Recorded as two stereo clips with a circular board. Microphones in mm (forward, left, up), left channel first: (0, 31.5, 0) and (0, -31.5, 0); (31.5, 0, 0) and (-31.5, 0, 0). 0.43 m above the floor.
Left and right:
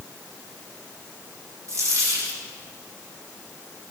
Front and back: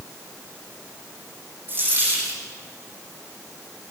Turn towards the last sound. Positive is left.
turn(degrees=-125)